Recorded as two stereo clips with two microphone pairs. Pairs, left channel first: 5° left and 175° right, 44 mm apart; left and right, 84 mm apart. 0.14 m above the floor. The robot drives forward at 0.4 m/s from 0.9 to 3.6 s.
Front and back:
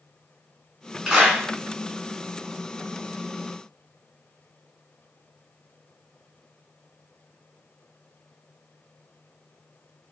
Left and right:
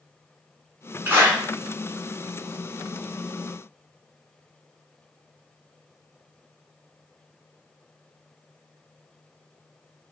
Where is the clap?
120° right, 1.0 m; by 1.4 s 135° right, 1.0 m.